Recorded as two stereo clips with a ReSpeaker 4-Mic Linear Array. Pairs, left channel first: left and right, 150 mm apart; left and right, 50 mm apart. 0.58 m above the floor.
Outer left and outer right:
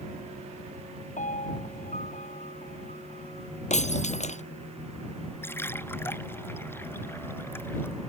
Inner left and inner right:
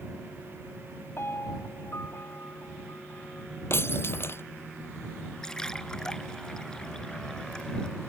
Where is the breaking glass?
50° left (ahead or behind).